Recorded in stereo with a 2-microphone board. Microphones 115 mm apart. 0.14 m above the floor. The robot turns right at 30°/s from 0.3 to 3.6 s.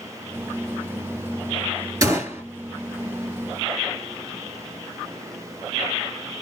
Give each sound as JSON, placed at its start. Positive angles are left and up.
{"t": 2.0, "sound": "a gunshot", "side_deg": -30, "distance_m": 2.0}